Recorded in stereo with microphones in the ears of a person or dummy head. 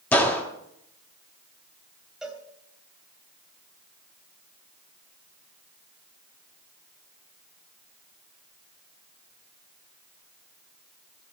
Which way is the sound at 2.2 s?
Centre (ahead or behind).